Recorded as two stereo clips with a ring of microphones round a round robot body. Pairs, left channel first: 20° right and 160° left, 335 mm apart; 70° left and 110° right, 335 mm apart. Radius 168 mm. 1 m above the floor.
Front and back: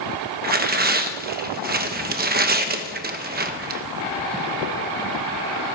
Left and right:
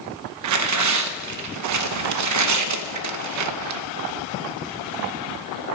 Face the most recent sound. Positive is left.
turn(degrees=-145)